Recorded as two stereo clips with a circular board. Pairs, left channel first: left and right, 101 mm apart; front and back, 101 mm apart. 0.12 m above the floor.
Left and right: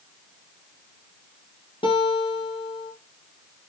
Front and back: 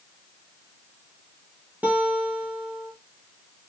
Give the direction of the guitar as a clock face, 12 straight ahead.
8 o'clock.